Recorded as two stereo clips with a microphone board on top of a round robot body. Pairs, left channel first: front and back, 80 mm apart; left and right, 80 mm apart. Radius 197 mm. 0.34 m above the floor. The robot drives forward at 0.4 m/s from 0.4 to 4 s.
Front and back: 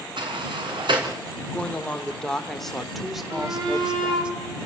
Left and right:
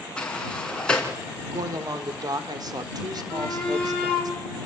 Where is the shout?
165° left, 6.5 m; by 4.3 s 170° left, 7 m.